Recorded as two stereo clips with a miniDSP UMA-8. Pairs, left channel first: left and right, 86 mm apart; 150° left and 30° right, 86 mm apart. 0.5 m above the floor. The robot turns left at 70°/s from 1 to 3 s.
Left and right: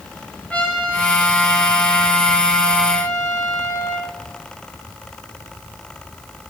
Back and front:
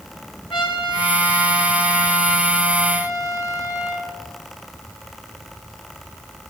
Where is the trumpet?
165° left, 6 m; by 4.1 s 25° left, 6 m.